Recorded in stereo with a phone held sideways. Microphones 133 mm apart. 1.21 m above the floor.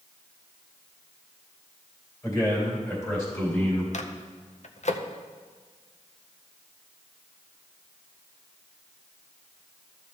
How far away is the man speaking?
About 4 m.